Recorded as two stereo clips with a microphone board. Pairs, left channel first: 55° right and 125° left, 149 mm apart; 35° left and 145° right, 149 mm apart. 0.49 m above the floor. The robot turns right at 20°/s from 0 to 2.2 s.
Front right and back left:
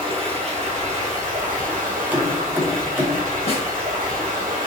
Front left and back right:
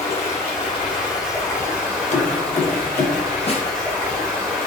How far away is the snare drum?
About 0.6 m.